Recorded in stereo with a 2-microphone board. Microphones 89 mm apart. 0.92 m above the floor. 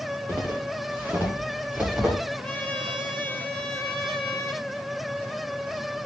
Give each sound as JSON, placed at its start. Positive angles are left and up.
{"t": 0.3, "sound": "footsteps", "side_deg": -25, "distance_m": 8.0}
{"t": 2.4, "sound": "a trumpet", "side_deg": 5, "distance_m": 8.5}